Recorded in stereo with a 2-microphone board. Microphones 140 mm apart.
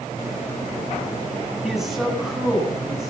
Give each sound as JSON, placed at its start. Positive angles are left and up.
{"t": 1.6, "sound": "a man speaking", "side_deg": -5, "distance_m": 8.5}